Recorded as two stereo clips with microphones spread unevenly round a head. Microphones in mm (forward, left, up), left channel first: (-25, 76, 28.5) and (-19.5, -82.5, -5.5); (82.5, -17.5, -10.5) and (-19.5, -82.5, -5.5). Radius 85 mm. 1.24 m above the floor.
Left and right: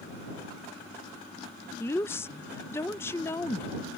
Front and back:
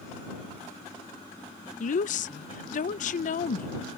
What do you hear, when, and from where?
1.8 s a woman speaking: 15° left